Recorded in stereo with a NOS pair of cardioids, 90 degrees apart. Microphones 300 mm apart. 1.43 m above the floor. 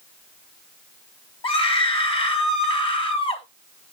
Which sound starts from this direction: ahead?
A scream, at 1.4 s.